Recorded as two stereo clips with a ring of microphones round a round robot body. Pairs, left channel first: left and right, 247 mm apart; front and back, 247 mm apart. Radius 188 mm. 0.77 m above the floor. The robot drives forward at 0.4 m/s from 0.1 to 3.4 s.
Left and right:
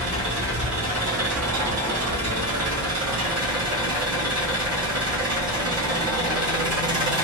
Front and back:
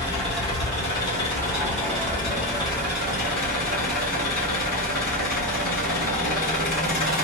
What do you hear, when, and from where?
0.0 s an engine running: 70° right, 3 m; by 7.2 s 100° right, 2.5 m